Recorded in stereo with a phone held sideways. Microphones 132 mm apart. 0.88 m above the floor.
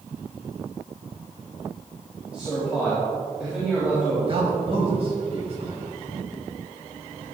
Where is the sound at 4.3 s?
45° right (ahead or behind), 4.5 m.